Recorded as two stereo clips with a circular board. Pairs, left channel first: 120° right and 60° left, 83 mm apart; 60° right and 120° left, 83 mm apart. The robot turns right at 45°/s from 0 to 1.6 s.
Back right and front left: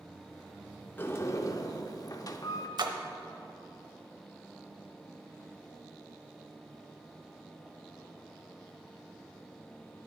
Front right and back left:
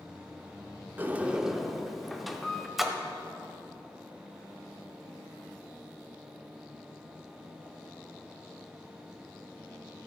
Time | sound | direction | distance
1.0 | a sliding door | straight behind | 0.7 m
2.8 | a splash | 30° left | 0.8 m